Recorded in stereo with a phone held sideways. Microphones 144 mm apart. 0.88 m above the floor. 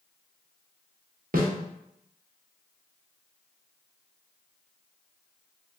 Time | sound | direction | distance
1.3 | a snare drum | 80° right | 0.9 m